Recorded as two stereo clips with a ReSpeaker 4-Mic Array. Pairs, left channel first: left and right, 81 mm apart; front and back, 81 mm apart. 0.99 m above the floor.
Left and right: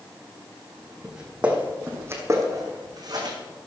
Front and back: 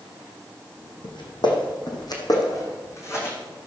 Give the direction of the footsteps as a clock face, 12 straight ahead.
12 o'clock.